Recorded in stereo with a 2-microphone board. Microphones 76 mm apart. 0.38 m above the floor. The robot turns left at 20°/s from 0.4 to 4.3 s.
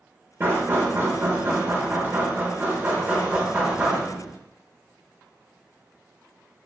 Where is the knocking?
30° right (ahead or behind), 0.6 m; by 4.4 s 10° right (ahead or behind), 0.6 m.